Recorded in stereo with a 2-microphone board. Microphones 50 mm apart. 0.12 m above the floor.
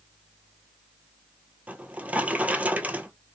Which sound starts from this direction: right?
A drawer, at 1.7 s.